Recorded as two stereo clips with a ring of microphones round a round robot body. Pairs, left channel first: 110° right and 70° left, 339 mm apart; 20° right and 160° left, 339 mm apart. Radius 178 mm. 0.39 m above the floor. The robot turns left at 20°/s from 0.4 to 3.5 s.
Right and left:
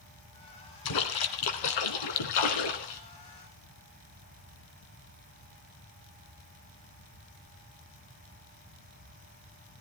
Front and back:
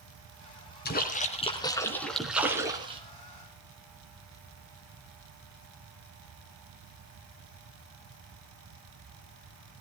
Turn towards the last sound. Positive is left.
turn(degrees=-140)